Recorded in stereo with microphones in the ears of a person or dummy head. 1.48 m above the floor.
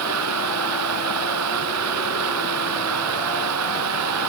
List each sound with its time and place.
0.0 s running water: 85° right